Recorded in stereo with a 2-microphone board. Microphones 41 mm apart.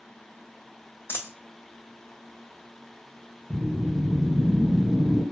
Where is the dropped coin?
75° left (ahead or behind), 0.5 m.